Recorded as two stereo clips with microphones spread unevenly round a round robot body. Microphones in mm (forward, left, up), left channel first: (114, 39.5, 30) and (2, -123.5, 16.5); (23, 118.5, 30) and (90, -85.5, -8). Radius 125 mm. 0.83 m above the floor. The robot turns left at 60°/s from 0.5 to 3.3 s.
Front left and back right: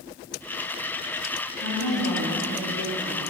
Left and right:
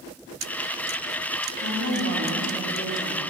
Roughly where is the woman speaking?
Right.